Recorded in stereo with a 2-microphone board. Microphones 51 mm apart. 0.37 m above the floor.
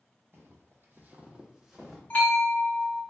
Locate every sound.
0.3 s footsteps: 55° right (ahead or behind), 0.7 m; by 2.0 s centre (ahead or behind), 0.9 m
2.1 s a bell: 35° left (ahead or behind), 1.1 m